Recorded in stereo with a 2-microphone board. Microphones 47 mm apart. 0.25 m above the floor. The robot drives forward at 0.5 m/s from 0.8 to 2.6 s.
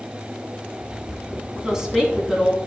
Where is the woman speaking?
15° right (ahead or behind), 1.8 m; by 2.6 s 10° right (ahead or behind), 2 m.